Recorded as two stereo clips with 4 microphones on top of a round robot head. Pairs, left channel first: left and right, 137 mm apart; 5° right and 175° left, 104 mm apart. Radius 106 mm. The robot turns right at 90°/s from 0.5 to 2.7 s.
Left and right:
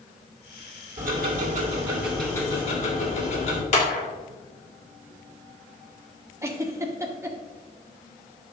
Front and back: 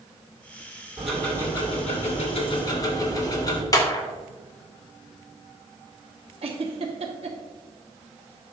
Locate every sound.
1.0 s ticking: 105° right, 2.5 m; by 3.6 s 50° left, 2.5 m
3.7 s a clap: 50° left, 2 m
6.4 s a giggle: 160° right, 1.4 m